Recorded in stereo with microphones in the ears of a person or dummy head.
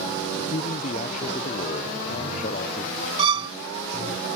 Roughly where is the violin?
Right.